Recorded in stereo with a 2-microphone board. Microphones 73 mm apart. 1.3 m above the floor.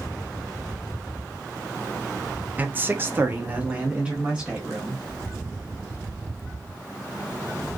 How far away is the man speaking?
About 0.5 m.